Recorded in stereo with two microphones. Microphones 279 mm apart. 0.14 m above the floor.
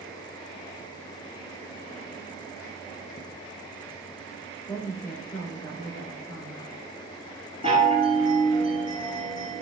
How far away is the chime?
About 1.8 m.